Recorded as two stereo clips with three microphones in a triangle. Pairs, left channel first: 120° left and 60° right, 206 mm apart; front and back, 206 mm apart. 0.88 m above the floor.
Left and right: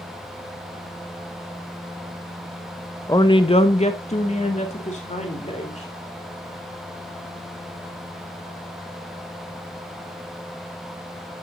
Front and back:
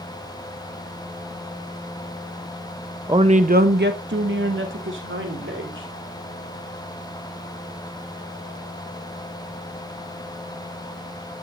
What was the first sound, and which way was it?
A woman speaking, 155° left.